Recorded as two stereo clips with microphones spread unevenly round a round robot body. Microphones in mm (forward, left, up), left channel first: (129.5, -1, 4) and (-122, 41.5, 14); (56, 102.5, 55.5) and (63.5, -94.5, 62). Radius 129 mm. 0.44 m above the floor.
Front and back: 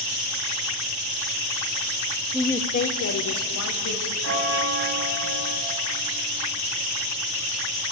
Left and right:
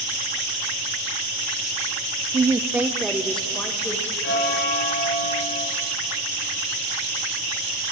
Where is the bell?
135° left, 2 m.